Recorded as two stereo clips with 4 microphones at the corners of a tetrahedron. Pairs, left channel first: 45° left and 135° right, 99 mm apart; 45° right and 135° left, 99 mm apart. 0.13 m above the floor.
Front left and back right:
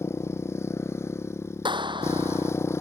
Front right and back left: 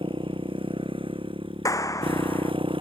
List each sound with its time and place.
0.0 s a motorcycle: 110° left
1.6 s a clap: 100° right